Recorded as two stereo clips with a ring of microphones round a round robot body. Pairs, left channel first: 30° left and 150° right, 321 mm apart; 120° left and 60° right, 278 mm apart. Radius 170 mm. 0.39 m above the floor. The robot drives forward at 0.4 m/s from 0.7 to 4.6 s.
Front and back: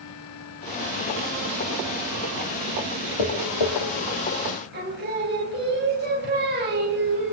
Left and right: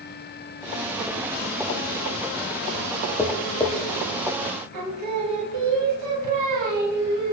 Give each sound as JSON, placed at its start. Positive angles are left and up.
{"t": 3.2, "sound": "tapping", "azimuth_deg": 40, "distance_m": 3.0}
{"t": 4.7, "sound": "singing", "azimuth_deg": -90, "distance_m": 2.5}